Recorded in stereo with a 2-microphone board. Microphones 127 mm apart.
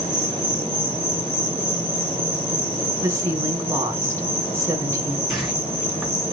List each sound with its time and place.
0.0 s an insect: 15° left (ahead or behind), 4.5 m
3.0 s a woman speaking: 25° right (ahead or behind), 2 m
5.3 s a whoosh: centre (ahead or behind), 3.5 m